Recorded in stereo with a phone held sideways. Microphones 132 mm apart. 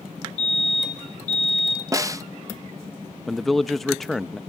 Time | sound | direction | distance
0.4 | a fire alarm | 60° left (ahead or behind) | 6.5 m
1.9 | a snare drum | 25° right (ahead or behind) | 0.6 m
3.3 | a man speaking | centre (ahead or behind) | 0.5 m